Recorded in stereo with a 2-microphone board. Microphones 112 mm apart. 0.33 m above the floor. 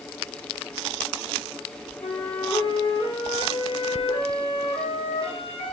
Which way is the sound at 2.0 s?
60° left (ahead or behind).